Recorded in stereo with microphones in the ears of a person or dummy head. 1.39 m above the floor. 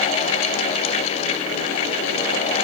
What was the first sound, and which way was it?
Only background noise.